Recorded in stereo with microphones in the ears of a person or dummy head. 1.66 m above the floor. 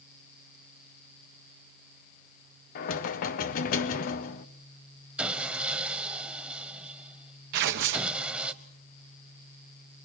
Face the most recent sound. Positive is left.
turn(degrees=-60)  # may be behind; listen again after turning